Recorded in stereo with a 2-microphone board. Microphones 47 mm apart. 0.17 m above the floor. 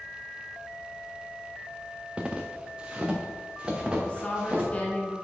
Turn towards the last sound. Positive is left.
turn(degrees=25)  # may be behind; listen again after turning